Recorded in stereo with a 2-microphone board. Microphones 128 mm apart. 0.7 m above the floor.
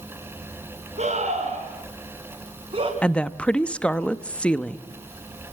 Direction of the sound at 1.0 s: 80° right.